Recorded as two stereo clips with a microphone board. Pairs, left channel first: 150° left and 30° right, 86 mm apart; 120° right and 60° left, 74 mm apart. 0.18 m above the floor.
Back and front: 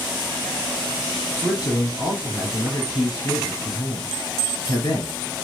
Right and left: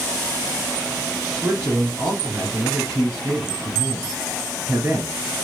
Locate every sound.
1.4 s a man speaking: 115° left, 2.0 m